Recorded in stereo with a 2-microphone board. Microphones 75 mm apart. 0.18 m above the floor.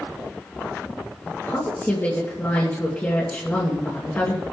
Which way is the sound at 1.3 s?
30° left (ahead or behind).